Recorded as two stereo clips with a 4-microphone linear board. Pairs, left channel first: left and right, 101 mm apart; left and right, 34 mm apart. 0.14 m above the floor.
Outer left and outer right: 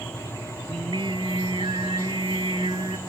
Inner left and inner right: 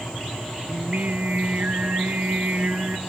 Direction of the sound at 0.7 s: 55° right (ahead or behind).